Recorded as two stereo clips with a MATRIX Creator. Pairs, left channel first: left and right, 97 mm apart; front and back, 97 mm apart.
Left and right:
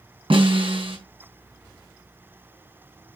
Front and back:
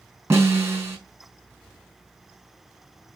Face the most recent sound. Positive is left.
turn(degrees=-115)